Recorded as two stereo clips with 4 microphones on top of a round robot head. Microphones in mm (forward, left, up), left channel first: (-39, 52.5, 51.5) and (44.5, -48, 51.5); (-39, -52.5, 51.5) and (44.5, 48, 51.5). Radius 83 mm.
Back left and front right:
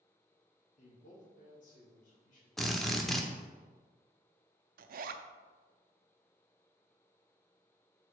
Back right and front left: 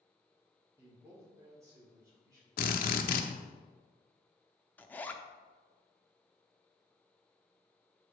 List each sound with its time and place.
0.8 s a man speaking: 120° left, 2 m; by 3.6 s 115° left, 3.5 m
2.6 s a drill: 140° right, 0.7 m
4.8 s a zipper: 50° right, 0.6 m